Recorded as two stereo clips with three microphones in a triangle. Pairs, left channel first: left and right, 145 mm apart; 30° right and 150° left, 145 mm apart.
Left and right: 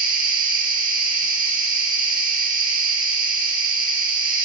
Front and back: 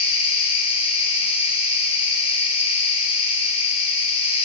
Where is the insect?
80° right, 7.5 m.